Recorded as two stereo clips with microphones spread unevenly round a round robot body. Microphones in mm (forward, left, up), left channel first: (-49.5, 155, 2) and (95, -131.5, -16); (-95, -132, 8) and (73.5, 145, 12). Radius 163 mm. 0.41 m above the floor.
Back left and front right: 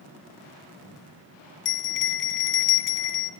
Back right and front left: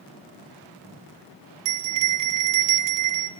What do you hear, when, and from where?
1.6 s a bell: 60° left, 1.2 m